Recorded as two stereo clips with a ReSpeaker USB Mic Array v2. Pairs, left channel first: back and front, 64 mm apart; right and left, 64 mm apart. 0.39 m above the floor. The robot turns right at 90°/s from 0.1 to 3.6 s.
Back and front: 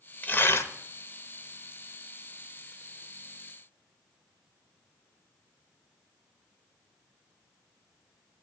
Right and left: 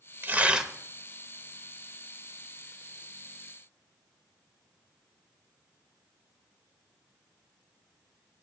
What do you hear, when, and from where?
0.2 s tearing paper: 130° left, 0.8 m; by 0.7 s 175° left, 0.8 m